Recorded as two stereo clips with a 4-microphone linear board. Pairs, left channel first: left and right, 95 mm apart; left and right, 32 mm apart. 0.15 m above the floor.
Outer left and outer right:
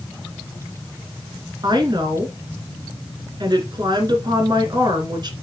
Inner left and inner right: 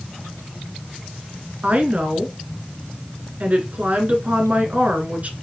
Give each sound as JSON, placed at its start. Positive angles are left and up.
{"t": 1.6, "sound": "a woman speaking", "side_deg": -45, "distance_m": 2.0}